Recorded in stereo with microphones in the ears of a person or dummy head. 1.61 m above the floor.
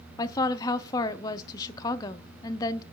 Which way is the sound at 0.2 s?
25° left (ahead or behind).